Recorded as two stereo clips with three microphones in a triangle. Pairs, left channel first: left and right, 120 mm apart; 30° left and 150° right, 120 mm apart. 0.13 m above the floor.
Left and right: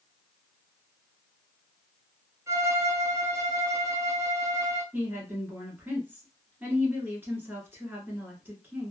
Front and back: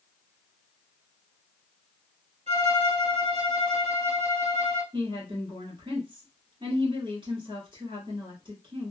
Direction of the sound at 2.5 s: 155° right.